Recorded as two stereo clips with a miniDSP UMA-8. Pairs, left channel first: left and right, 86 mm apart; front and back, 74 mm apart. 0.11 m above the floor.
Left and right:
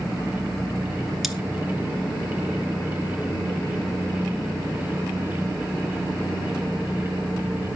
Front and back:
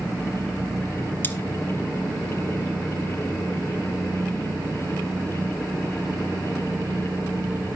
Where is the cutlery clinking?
5° right, 0.8 m.